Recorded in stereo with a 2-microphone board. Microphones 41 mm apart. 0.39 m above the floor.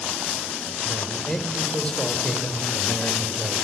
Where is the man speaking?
20° left (ahead or behind), 1.8 m.